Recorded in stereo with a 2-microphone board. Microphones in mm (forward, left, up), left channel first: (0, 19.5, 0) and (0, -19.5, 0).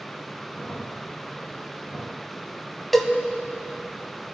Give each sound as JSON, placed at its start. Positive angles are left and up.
{"t": 0.5, "sound": "a crack", "side_deg": 55, "distance_m": 4.0}
{"t": 2.9, "sound": "a cowbell", "side_deg": 5, "distance_m": 1.0}